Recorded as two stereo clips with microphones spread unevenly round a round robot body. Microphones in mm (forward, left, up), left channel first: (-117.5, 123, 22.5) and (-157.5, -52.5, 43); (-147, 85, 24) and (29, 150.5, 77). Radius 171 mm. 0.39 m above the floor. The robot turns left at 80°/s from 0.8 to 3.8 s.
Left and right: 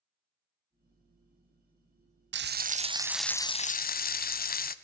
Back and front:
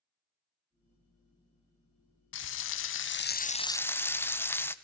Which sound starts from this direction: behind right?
Frying, at 2.3 s.